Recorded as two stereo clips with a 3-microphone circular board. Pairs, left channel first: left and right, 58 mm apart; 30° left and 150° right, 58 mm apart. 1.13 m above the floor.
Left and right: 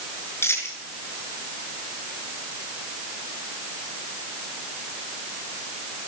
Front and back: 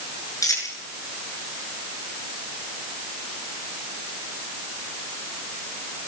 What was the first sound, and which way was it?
A dropped coin, 45° left.